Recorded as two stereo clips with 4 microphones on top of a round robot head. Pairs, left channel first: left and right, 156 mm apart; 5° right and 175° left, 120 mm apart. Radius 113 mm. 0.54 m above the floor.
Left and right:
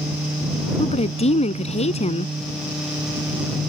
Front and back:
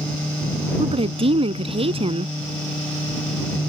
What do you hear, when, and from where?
0.8 s a woman speaking: 135° left